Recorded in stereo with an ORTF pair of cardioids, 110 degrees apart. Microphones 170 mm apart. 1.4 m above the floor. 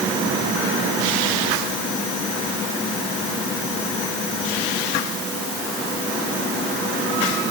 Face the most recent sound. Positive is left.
No sound to turn to.